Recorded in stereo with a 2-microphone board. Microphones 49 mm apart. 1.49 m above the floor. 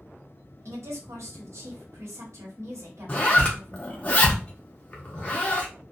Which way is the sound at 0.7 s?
75° right (ahead or behind).